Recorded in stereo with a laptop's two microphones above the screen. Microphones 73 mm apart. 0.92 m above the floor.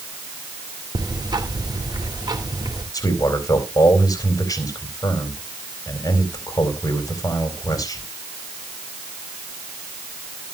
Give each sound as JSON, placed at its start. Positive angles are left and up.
{"t": 0.9, "sound": "ticking", "side_deg": -75, "distance_m": 2.5}
{"t": 2.9, "sound": "a man speaking", "side_deg": 50, "distance_m": 4.0}